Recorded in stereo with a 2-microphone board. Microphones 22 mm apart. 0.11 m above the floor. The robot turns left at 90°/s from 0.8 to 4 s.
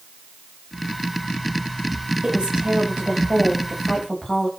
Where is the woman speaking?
50° right, 9.5 m; by 4.5 s 150° left, 9.5 m.